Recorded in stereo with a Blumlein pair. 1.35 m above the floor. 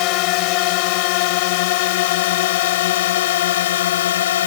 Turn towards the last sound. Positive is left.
turn(degrees=60)